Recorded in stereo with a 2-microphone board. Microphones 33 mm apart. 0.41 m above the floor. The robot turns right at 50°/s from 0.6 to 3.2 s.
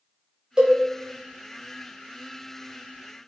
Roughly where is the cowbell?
Right.